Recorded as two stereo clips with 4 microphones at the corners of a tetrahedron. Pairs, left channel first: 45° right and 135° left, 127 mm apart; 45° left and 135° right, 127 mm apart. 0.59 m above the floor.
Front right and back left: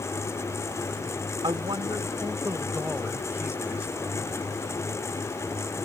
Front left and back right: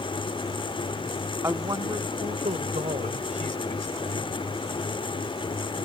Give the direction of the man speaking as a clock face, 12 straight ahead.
7 o'clock.